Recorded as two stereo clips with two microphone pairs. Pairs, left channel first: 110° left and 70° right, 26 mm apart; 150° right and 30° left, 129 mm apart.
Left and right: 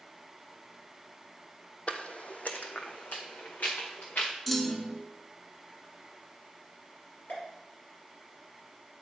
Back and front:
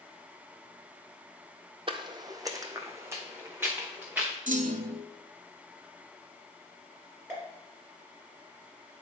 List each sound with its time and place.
1.9 s footsteps: 75° left, 0.6 m; by 4.3 s 110° left, 1.8 m
4.5 s a clunk: 25° left, 0.6 m
7.3 s a pop: 100° left, 3 m